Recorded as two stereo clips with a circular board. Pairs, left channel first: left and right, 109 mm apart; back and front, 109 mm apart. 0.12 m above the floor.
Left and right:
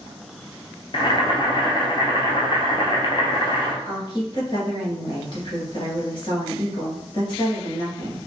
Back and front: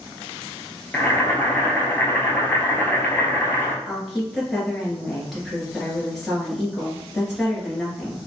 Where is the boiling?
110° left, 0.7 m.